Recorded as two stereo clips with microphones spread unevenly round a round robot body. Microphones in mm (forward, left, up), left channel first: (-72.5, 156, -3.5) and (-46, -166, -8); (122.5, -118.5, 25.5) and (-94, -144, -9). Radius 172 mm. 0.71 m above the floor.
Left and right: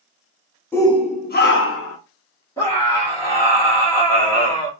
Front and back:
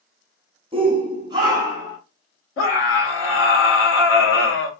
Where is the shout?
175° left, 0.8 m; by 2.0 s 120° left, 1.1 m.